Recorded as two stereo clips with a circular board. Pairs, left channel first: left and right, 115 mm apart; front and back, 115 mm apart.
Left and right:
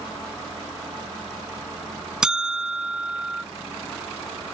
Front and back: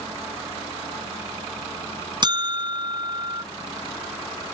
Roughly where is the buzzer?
Behind.